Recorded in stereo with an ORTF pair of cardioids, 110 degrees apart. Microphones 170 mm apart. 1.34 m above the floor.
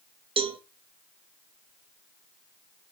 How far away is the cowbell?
About 1.2 m.